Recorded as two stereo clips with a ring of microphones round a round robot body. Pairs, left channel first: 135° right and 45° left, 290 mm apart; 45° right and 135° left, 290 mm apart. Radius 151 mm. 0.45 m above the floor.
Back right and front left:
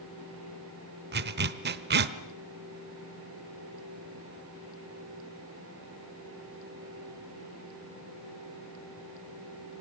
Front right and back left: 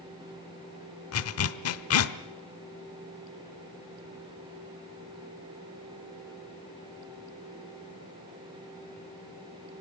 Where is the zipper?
10° right, 1.0 m.